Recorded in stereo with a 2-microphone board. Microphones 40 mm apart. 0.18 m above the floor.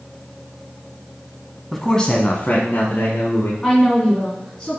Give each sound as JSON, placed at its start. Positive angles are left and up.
{"t": 1.7, "sound": "a man speaking", "side_deg": 5, "distance_m": 1.0}
{"t": 3.6, "sound": "a woman speaking", "side_deg": 20, "distance_m": 1.8}